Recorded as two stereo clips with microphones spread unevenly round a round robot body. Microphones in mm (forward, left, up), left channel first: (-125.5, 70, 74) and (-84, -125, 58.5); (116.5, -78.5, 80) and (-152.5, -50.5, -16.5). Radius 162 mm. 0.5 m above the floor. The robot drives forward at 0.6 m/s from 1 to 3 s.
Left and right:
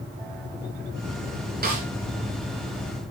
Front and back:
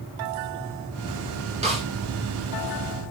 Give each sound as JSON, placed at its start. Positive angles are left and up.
{"t": 1.6, "sound": "a snare drum", "azimuth_deg": -120, "distance_m": 7.5}